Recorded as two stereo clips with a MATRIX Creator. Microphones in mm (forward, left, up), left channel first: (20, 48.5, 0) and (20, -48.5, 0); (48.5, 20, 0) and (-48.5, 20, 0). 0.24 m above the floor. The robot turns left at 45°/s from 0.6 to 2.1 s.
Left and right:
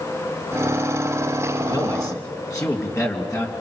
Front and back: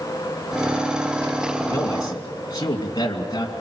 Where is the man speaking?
60° left, 2.5 m; by 3.5 s 40° left, 2.5 m.